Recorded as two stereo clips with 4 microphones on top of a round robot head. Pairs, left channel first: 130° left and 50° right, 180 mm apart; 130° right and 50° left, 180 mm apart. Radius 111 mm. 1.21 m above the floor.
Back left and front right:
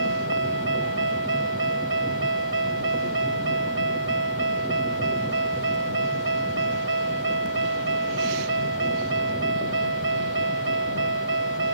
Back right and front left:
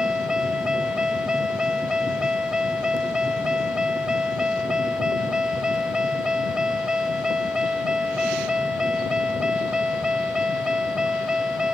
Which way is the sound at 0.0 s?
35° right.